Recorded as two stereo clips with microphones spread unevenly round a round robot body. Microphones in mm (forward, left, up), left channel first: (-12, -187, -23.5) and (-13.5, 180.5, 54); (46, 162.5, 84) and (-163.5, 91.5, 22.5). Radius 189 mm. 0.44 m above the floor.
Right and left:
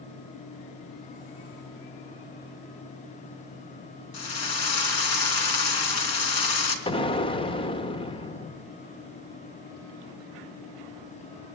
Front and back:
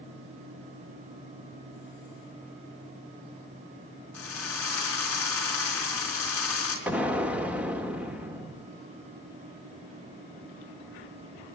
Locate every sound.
4.1 s a drill: 65° right, 4 m
6.9 s an explosion: 120° right, 1.1 m